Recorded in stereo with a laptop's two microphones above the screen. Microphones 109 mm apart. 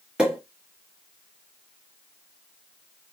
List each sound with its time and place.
0.2 s a pop: 10° right (ahead or behind), 1.3 m